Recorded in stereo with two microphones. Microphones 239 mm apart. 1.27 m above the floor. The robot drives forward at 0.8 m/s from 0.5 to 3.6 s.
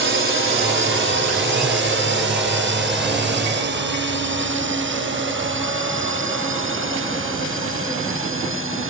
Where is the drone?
50° right (ahead or behind); by 8.9 s 55° right (ahead or behind).